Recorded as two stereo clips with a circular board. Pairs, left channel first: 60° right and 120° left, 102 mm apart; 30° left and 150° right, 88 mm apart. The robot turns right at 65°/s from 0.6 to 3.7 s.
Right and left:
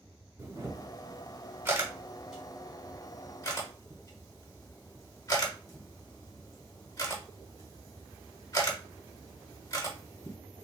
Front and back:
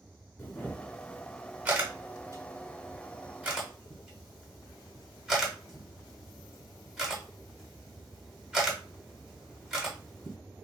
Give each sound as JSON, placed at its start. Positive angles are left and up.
{"t": 0.4, "sound": "a camera shutter", "azimuth_deg": 85, "distance_m": 1.2}